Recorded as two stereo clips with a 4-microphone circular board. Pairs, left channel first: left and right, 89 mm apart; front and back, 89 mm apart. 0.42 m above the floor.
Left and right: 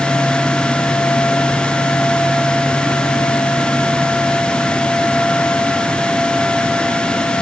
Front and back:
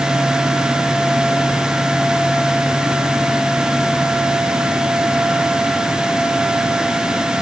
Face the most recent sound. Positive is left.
No sound to turn to.